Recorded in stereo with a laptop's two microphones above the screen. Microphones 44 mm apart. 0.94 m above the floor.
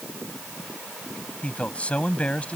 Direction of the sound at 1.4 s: 30° left (ahead or behind).